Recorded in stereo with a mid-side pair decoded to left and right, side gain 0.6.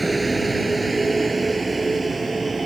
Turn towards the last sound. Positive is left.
turn(degrees=-20)